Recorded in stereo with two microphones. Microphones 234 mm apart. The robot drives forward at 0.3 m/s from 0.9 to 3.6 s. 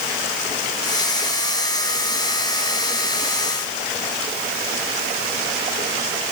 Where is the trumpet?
No trumpet in this recording.